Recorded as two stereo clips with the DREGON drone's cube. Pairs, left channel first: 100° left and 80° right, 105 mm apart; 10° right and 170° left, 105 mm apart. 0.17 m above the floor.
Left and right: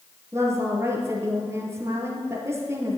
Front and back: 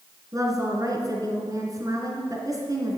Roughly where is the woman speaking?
Behind right.